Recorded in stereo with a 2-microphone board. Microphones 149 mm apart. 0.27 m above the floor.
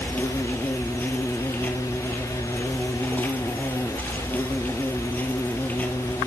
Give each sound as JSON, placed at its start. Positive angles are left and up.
{"t": 0.0, "sound": "an insect", "side_deg": 10, "distance_m": 1.1}